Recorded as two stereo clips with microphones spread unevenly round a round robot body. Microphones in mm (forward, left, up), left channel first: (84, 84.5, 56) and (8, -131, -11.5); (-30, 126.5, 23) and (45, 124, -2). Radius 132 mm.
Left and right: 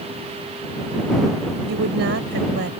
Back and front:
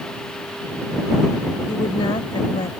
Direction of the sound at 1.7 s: 150° right.